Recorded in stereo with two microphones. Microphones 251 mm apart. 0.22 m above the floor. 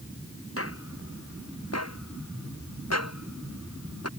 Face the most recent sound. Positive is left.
turn(degrees=75)  # may be behind; listen again after turning